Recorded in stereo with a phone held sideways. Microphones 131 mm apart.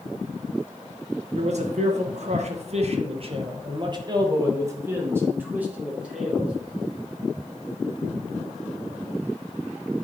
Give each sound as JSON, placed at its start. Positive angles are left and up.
{"t": 1.3, "sound": "a man speaking", "side_deg": -60, "distance_m": 1.4}